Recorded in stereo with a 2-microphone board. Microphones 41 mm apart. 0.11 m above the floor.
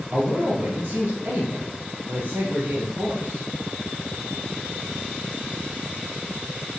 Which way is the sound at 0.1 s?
45° right (ahead or behind).